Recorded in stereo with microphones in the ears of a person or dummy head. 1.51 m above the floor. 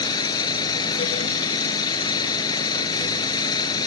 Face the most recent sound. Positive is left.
turn(degrees=25)  # may be behind; listen again after turning